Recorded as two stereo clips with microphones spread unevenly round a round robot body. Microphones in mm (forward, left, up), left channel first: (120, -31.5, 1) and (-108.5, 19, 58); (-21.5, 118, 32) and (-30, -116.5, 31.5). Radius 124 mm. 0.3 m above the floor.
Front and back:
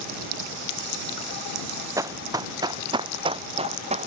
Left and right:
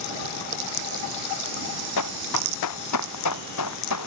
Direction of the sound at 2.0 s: 90° left.